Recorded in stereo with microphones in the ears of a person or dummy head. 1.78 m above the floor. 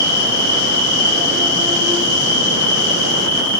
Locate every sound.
0.0 s an insect: 20° right (ahead or behind), 1.4 m